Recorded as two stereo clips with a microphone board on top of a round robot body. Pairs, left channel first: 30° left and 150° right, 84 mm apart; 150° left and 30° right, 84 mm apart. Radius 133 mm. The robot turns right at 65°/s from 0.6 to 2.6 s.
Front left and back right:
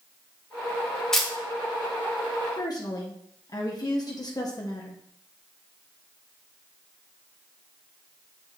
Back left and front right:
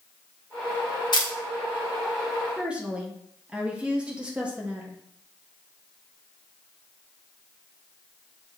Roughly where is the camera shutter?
Behind left.